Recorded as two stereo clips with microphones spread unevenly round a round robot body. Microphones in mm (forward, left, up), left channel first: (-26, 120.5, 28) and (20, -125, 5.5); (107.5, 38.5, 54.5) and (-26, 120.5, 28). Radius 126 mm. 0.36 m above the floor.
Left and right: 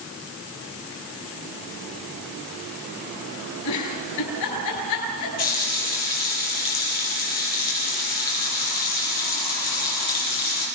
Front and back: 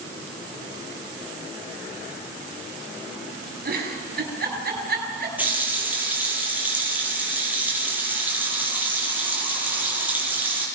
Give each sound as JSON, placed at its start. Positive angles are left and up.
{"t": 3.6, "sound": "a giggle", "azimuth_deg": 125, "distance_m": 6.5}
{"t": 5.4, "sound": "a running tap", "azimuth_deg": 70, "distance_m": 8.0}